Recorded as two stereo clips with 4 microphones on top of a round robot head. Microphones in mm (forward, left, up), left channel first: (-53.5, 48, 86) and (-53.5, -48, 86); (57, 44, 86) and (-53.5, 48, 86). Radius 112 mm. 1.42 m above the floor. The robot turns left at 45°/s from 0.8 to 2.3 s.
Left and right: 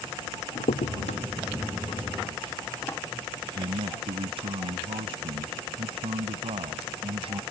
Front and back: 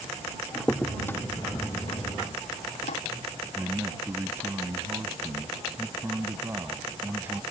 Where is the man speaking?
110° right.